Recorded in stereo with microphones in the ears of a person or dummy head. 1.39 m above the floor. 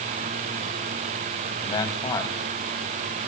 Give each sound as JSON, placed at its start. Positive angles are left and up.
{"t": 1.6, "sound": "a man speaking", "side_deg": 25, "distance_m": 2.5}